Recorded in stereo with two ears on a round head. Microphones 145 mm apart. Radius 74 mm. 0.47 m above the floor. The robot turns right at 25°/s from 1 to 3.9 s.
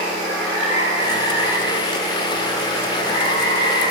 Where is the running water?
25° right, 4.5 m; by 3.9 s 50° left, 4.5 m.